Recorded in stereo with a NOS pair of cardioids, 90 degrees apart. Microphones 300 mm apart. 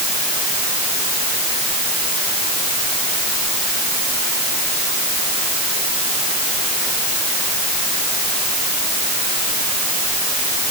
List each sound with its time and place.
Only background noise.